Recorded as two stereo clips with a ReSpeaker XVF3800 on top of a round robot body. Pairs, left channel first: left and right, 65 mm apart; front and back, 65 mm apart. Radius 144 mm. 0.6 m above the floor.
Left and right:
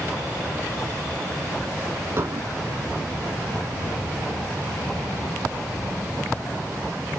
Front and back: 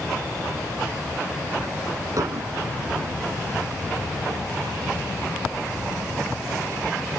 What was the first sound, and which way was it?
Dishes clattering, 145° right.